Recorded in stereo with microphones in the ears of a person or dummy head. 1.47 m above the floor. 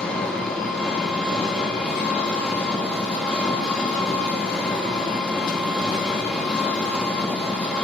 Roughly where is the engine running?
Centre.